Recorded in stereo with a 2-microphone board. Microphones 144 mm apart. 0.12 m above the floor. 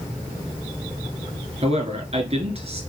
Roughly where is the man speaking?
Right.